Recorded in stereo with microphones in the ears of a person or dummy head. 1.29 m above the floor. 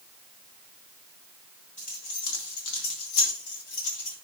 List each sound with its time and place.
1.8 s keys jangling: 35° left (ahead or behind), 1.2 m; by 4.1 s 80° left, 2.5 m